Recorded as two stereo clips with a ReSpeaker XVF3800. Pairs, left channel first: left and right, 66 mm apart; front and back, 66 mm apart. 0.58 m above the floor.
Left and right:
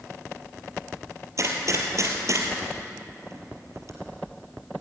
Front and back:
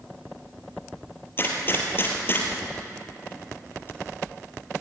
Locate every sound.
1.4 s a gunshot: 55° right, 3.5 m